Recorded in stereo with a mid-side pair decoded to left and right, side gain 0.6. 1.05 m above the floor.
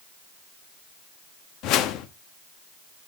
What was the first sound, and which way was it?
A whoosh, 65° left.